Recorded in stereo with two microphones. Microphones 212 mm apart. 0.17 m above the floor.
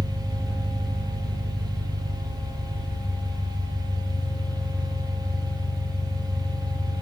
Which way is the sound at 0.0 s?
5° left (ahead or behind).